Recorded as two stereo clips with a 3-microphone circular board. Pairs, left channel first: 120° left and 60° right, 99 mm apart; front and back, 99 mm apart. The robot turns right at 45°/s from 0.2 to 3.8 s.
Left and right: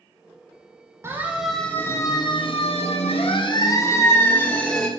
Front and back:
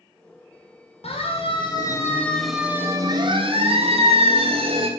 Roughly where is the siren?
Ahead.